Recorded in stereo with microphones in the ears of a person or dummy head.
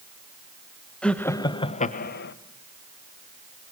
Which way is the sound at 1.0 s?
10° left (ahead or behind).